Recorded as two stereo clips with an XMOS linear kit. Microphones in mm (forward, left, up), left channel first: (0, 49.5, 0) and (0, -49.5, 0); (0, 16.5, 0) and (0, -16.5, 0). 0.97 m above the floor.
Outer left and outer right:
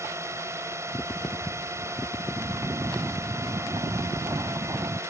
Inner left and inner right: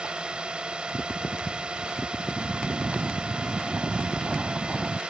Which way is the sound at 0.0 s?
30° right (ahead or behind).